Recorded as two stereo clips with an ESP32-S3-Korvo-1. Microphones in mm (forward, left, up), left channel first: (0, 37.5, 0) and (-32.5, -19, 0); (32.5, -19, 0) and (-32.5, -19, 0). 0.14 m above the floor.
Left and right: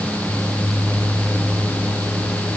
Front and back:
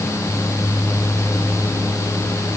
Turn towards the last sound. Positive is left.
No sound to turn to.